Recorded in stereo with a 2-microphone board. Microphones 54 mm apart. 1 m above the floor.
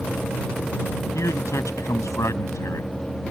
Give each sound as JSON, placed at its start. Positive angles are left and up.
{"t": 1.1, "sound": "a man speaking", "side_deg": 75}